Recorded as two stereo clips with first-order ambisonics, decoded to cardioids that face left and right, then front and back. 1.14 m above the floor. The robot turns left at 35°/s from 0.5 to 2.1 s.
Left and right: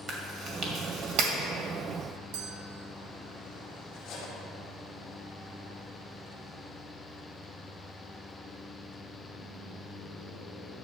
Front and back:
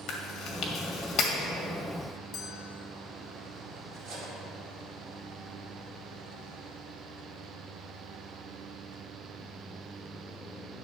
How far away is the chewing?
About 1.7 m.